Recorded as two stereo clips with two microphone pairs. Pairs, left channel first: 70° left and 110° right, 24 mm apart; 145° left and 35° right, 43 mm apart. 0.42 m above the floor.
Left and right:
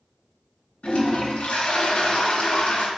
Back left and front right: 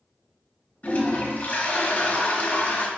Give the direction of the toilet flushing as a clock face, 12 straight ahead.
9 o'clock.